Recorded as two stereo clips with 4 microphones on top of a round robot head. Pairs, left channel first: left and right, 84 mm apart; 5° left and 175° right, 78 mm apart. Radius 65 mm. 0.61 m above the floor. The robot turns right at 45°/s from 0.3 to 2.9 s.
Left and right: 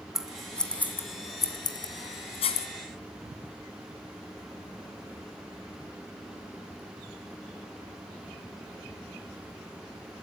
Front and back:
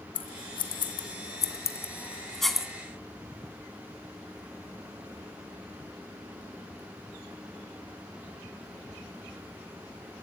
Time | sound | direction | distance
0.1 | scissors | 5° right | 2 m